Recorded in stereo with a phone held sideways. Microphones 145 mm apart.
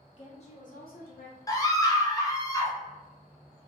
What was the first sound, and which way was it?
A woman speaking, 40° left (ahead or behind).